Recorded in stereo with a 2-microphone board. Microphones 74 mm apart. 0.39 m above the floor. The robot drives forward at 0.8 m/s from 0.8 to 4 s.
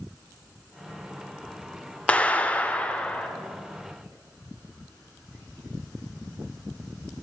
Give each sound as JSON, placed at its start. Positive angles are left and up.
{"t": 2.1, "sound": "a clap", "side_deg": 15, "distance_m": 0.7}